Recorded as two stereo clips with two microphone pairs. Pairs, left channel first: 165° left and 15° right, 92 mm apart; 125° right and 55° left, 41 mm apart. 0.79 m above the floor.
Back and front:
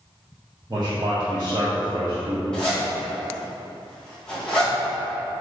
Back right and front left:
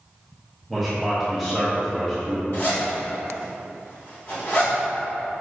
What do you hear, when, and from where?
0.7 s a man speaking: 35° right, 1.0 m
2.5 s a zipper: 115° right, 1.7 m